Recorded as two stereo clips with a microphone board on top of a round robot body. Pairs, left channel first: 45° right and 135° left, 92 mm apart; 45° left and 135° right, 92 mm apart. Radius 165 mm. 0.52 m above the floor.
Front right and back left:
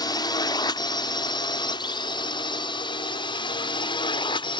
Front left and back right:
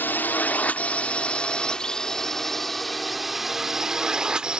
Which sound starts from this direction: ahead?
A drone, at 0.0 s.